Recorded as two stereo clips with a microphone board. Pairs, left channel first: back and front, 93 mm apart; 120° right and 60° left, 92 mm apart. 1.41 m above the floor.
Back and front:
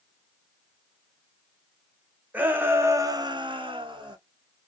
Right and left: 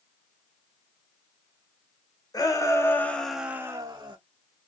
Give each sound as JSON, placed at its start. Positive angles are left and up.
{"t": 2.3, "sound": "a shout", "azimuth_deg": -75, "distance_m": 1.3}